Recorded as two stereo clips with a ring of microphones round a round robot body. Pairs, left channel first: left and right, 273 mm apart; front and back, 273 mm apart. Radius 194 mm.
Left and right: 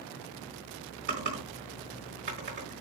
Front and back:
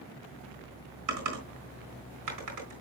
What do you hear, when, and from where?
1.1 s typing on a keyboard: 155° right, 3.5 m